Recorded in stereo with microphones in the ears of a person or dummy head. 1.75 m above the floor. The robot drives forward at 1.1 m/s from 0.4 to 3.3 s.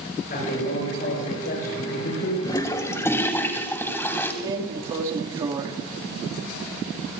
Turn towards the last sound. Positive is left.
turn(degrees=-25)  # may be behind; listen again after turning